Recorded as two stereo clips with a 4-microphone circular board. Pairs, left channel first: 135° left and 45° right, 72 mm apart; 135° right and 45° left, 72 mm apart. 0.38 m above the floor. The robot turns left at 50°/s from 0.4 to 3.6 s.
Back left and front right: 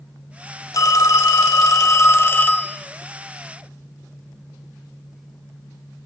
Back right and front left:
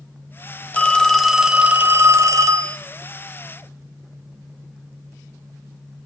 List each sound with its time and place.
0.7 s a phone ringing: 160° left, 0.9 m; by 2.8 s 60° left, 0.9 m